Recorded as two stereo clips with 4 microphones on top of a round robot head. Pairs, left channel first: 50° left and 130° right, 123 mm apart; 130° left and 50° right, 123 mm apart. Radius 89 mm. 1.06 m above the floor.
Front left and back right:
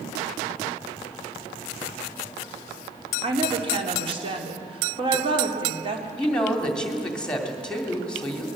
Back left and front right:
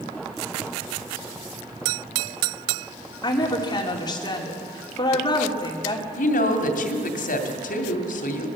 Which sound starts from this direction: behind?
A woman speaking, at 3.2 s.